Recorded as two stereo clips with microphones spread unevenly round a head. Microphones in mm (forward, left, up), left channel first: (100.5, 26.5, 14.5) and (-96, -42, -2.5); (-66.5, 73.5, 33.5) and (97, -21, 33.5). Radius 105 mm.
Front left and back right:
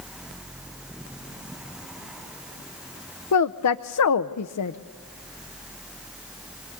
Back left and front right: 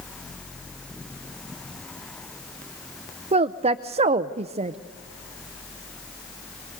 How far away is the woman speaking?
About 0.6 m.